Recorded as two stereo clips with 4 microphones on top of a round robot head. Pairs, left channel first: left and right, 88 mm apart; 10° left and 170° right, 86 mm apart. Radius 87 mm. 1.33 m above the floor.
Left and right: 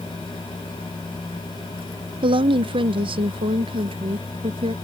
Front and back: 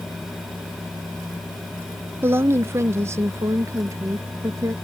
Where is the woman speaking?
110° right; by 4.7 s 115° right.